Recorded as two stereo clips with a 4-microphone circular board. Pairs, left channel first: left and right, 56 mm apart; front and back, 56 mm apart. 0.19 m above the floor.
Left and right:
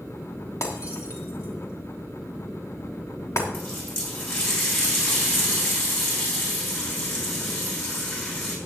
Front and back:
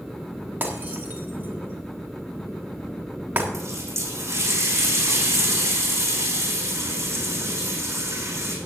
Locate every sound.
0.6 s breaking glass: 120° left, 3 m
3.5 s a running tap: 150° left, 6 m